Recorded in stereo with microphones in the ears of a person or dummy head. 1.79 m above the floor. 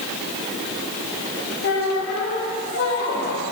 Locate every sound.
1.6 s a squeak: 60° left (ahead or behind), 2.5 m